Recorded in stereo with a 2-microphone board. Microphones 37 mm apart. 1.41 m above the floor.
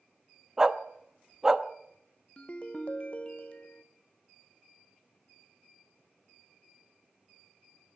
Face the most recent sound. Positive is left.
turn(degrees=35)  # may be behind; listen again after turning